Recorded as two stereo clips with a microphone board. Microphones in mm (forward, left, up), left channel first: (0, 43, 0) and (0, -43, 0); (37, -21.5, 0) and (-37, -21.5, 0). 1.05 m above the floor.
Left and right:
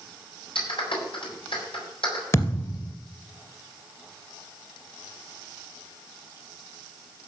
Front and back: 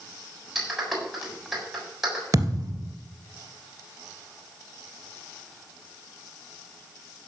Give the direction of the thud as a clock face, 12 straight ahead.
7 o'clock.